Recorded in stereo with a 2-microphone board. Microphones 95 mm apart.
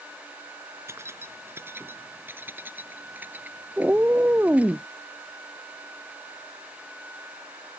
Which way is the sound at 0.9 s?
30° right (ahead or behind).